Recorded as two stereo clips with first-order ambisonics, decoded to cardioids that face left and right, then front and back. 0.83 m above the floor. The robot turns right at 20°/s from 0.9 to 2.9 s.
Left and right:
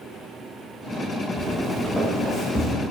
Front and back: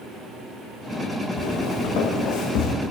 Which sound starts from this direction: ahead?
Footsteps, at 1.4 s.